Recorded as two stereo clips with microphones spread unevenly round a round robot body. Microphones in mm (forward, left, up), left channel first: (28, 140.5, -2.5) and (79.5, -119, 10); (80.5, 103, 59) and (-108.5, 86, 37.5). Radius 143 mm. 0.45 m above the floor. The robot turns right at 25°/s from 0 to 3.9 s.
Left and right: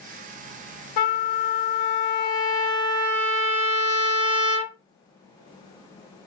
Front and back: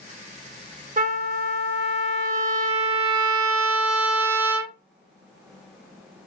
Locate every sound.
1.0 s a trumpet: 130° left, 0.6 m; by 4.8 s 155° right, 0.6 m